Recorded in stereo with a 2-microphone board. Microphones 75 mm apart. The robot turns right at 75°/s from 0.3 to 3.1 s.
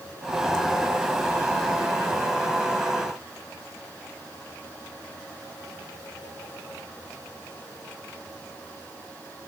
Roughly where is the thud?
No thud in this recording.